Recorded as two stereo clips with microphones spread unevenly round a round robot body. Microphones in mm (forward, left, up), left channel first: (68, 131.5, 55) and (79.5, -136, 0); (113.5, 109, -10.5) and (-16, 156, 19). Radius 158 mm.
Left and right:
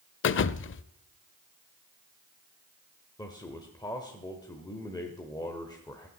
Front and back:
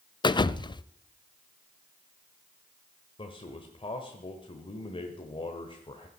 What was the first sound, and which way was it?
A thud, 40° left.